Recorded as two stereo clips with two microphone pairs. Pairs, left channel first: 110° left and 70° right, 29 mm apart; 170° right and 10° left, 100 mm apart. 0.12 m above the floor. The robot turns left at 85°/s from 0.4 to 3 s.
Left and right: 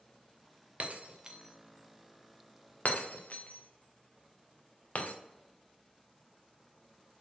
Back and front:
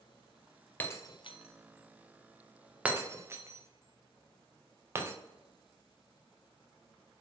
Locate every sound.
0.8 s breaking glass: 95° right, 1.3 m; by 5.1 s 75° left, 1.3 m